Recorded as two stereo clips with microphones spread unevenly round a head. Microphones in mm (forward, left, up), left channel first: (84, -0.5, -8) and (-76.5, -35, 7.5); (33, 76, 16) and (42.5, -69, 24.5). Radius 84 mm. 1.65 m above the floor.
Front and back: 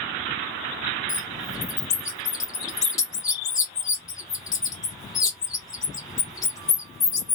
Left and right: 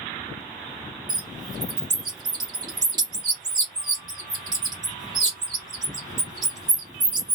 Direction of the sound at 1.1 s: 50° right.